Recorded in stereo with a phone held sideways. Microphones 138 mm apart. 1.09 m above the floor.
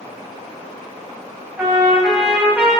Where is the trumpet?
15° right (ahead or behind), 3 m.